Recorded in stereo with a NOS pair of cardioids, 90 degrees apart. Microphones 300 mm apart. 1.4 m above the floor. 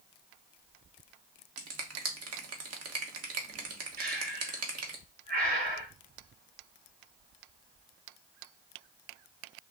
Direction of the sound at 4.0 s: 30° right.